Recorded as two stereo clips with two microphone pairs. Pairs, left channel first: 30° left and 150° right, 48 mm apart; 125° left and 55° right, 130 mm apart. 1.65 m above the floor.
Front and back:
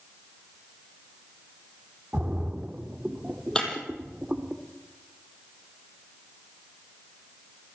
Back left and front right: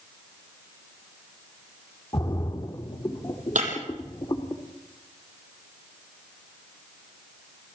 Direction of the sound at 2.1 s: 160° left.